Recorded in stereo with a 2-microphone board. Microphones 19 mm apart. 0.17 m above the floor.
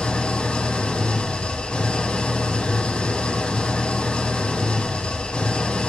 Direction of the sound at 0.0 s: 75° left (ahead or behind).